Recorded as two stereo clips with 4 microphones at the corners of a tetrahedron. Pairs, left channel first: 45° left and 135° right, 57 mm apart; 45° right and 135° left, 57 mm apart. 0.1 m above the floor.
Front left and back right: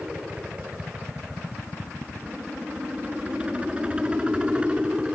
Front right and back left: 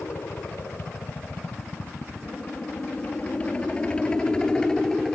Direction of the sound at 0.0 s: 70° right.